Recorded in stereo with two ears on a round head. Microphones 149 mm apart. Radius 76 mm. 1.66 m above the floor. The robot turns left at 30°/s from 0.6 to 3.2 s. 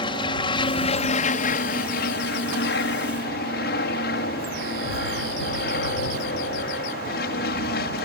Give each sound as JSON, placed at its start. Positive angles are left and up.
{"t": 0.0, "sound": "an aircraft", "azimuth_deg": 145}